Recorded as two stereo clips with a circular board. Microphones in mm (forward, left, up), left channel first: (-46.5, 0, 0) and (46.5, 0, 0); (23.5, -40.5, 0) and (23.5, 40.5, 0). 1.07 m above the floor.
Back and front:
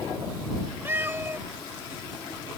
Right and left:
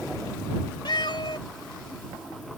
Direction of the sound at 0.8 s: 65° right.